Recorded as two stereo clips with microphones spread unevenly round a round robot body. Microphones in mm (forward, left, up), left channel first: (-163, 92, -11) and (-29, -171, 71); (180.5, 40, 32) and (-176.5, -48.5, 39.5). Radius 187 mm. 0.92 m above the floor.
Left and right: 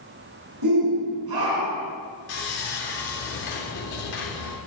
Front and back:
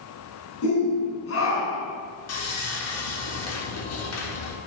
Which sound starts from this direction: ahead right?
A shout, at 0.6 s.